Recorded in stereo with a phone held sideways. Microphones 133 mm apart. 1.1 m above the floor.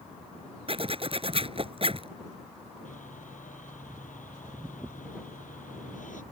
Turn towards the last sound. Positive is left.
turn(degrees=80)